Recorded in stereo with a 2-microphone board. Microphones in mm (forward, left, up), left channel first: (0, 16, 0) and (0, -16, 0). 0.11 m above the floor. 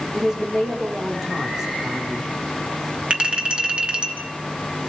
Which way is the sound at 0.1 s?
15° right (ahead or behind).